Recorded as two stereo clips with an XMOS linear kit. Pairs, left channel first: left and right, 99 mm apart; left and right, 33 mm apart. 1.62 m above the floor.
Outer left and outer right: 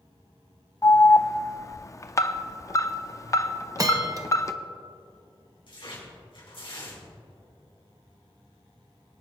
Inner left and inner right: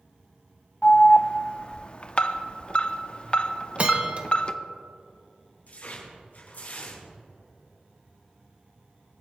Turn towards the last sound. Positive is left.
turn(degrees=60)  # may be behind; listen again after turning